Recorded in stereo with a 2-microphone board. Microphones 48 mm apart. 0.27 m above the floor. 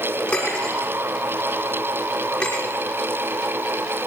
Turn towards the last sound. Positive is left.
turn(degrees=25)  # may be behind; listen again after turning